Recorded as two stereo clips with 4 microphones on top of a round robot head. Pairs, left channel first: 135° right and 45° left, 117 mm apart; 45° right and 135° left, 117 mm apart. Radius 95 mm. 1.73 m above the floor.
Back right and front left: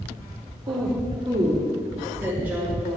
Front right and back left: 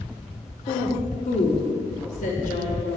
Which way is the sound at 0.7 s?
5° right.